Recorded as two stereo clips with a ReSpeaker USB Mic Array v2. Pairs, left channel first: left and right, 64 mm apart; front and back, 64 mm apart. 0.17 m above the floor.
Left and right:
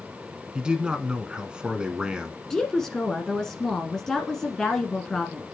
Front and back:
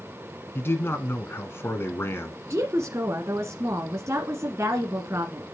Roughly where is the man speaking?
Ahead right.